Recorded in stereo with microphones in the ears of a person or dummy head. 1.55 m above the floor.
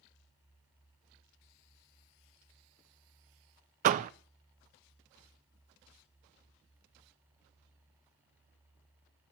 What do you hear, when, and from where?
3.8 s a door slam: 40° right (ahead or behind), 0.5 m